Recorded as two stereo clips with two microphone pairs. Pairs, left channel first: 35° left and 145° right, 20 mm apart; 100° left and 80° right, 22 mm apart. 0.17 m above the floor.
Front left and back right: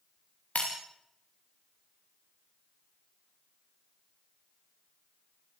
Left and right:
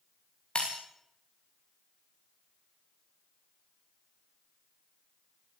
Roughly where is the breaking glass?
Ahead left.